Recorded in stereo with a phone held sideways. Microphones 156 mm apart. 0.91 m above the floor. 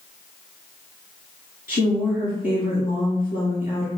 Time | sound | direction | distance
1.7 | a woman speaking | 65° left (ahead or behind) | 1.9 m